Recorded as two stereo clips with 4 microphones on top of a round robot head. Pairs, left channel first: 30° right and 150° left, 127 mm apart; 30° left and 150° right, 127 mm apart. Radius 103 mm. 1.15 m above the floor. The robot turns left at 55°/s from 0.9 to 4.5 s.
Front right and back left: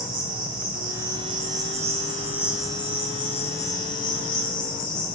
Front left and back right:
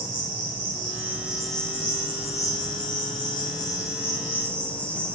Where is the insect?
155° left, 3.5 m; by 5.2 s 45° right, 3.5 m.